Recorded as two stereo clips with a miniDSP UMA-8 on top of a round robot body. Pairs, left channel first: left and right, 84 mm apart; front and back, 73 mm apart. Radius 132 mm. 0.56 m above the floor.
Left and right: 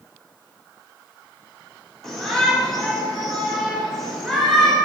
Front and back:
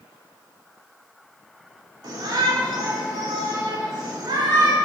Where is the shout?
175° left, 3 m.